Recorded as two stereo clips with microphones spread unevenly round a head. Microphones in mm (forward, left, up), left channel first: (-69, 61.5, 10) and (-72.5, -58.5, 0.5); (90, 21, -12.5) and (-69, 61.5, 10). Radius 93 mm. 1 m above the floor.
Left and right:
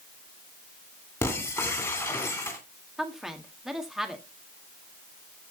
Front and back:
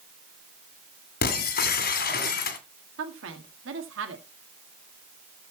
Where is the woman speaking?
Straight behind, 1.8 m.